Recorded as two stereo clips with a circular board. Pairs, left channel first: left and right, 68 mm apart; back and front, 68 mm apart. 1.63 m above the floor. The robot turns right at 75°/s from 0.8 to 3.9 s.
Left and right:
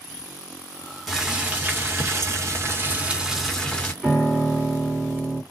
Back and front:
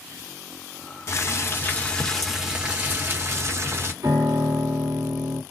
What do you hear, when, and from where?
1.1 s boiling: straight behind, 1.3 m; by 3.9 s 30° left, 1.3 m
4.0 s a piano: 10° right, 1.8 m